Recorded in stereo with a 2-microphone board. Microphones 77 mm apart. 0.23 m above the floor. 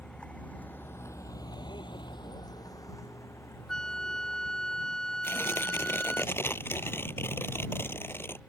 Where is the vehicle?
10° left (ahead or behind); by 8.5 s 20° left (ahead or behind).